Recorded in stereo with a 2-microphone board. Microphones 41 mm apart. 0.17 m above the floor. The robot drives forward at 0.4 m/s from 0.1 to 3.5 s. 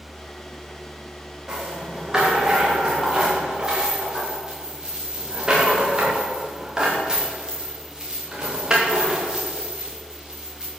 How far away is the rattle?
About 5.5 m.